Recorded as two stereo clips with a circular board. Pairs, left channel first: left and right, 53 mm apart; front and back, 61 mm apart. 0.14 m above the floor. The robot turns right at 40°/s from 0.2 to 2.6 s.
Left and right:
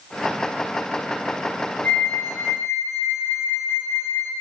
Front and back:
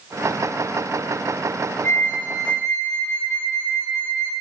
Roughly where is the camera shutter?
No camera shutter in this recording.